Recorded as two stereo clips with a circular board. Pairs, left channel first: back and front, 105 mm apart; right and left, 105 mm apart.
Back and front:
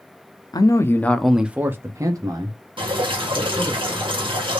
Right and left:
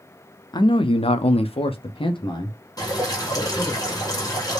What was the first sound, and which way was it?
A man speaking, 135° right.